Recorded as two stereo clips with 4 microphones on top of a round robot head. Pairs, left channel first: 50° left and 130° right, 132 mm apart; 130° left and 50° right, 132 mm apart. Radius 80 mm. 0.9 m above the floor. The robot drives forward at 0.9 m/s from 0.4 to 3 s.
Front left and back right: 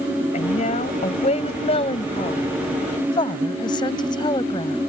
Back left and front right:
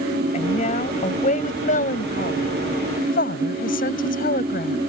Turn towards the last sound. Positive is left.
turn(degrees=110)